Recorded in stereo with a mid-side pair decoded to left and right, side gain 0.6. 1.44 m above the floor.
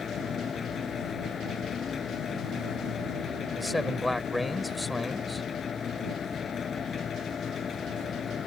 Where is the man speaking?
5° left.